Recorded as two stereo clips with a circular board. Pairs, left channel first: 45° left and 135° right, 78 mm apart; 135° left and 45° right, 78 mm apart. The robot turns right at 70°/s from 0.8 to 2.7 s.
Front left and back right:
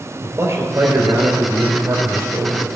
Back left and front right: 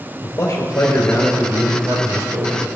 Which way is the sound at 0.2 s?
175° left.